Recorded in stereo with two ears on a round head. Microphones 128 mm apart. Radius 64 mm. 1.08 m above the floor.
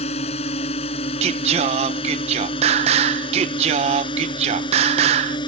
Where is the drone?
45° left (ahead or behind); by 5.5 s 30° left (ahead or behind).